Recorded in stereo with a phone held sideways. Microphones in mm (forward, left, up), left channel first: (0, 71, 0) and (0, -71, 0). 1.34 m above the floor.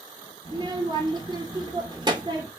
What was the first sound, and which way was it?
A child speaking, 30° right (ahead or behind).